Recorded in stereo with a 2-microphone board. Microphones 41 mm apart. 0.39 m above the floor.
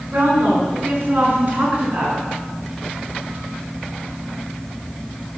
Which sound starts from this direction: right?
A woman speaking, at 0.1 s.